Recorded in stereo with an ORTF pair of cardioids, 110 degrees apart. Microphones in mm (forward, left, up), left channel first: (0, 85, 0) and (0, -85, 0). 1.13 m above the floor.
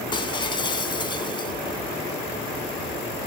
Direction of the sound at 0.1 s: 30° left.